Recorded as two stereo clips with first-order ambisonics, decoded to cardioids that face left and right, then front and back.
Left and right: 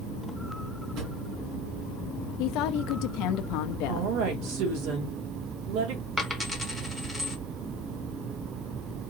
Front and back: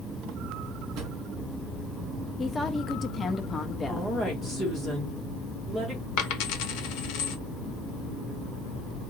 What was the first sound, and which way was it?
A drawer, 135° right.